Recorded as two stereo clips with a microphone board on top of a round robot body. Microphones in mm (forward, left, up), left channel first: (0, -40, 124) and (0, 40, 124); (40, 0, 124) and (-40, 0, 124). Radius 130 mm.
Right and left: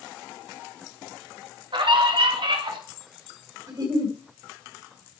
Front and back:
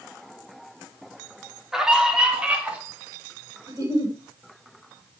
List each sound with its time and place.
1.7 s a scream: 95° left, 3 m; by 2.8 s 105° left, 3.5 m
3.7 s a giggle: 130° left, 4 m